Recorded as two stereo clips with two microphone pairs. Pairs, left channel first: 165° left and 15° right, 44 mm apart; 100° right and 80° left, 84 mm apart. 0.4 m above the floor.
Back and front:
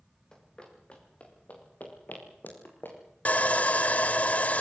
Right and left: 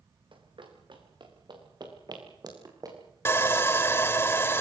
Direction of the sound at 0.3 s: 90° left.